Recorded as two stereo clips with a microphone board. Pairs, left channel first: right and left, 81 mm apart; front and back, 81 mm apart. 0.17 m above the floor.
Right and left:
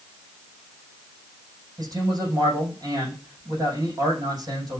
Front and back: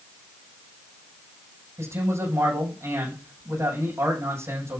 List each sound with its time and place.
1.8 s a man speaking: 125° left, 6 m